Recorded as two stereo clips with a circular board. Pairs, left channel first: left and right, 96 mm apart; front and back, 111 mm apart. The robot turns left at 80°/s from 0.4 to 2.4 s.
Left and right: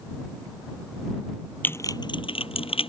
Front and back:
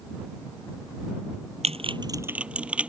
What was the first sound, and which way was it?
Typing on a keyboard, 160° left.